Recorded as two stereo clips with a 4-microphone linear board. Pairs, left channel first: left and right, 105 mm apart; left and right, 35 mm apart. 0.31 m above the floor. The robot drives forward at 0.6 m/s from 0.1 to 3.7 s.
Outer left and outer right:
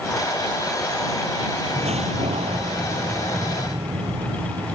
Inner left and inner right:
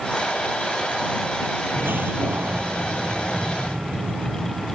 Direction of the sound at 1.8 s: 80° right.